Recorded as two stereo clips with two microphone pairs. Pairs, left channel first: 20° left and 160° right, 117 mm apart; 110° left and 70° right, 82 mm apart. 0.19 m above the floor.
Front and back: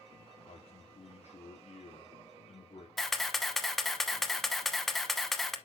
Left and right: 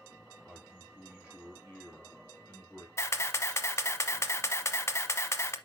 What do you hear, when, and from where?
0.5 s a man speaking: 15° left, 2.5 m
3.0 s a camera shutter: 110° left, 0.9 m